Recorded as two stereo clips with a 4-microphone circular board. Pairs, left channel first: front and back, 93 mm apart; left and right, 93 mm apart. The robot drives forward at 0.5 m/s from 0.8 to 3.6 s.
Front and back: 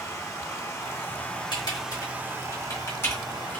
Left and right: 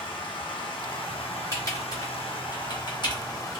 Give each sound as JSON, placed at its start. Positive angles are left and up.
{"t": 0.0, "sound": "running water", "azimuth_deg": 60, "distance_m": 0.9}
{"t": 1.5, "sound": "typing on a keyboard", "azimuth_deg": 40, "distance_m": 1.7}